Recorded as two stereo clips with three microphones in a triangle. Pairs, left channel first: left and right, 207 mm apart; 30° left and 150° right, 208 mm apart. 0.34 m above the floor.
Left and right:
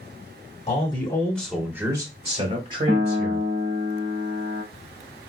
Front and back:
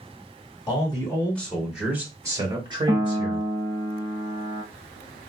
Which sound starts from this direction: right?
A piano, at 2.9 s.